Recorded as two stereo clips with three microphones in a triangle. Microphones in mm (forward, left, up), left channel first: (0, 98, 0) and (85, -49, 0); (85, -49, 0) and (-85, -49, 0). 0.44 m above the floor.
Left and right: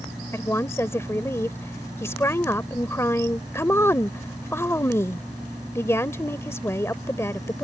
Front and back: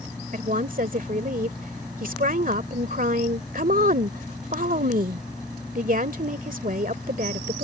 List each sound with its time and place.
0.3 s a woman speaking: 170° right